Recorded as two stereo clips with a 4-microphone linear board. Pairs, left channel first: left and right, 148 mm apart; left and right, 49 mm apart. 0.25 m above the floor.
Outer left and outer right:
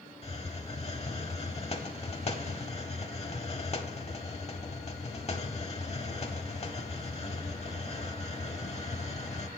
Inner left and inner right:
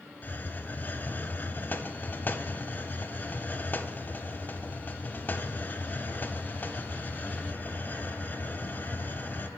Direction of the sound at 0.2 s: 45° left (ahead or behind).